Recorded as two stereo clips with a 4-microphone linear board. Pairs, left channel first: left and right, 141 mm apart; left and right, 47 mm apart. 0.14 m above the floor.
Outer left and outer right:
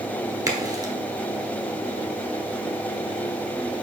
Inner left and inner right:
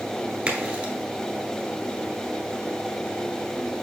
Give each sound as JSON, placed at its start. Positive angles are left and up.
{"t": 0.5, "sound": "a crack", "side_deg": -25, "distance_m": 1.0}